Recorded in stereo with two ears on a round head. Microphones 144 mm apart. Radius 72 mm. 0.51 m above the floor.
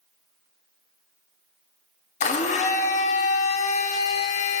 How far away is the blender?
About 0.9 m.